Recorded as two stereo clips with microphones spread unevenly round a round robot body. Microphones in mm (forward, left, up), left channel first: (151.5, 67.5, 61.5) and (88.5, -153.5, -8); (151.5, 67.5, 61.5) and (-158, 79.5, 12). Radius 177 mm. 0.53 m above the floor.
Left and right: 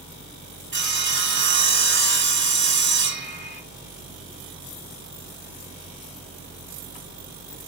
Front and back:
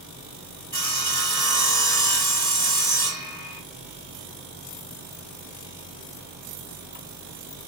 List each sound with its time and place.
0.7 s sawing: 70° right, 2.5 m